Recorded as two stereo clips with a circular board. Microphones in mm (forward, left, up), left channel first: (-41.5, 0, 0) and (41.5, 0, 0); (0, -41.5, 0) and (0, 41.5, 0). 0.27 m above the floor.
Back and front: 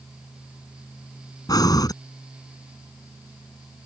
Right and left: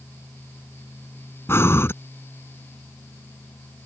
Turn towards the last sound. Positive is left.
turn(degrees=-145)